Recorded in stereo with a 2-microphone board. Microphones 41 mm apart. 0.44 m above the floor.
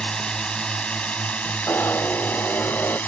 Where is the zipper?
80° left.